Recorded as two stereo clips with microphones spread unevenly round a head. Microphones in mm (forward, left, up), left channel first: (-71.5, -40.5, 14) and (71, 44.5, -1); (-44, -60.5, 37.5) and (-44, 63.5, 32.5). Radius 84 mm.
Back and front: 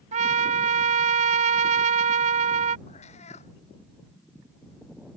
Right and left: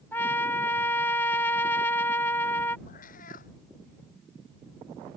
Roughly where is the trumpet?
Ahead.